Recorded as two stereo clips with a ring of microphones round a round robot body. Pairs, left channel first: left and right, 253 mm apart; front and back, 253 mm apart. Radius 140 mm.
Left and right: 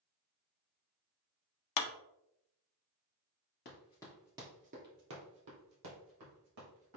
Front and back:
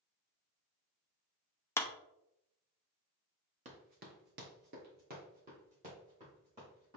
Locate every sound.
1.8 s a clap: 80° left, 0.7 m
3.6 s running footsteps: 130° left, 1.3 m; by 7.0 s 110° right, 4 m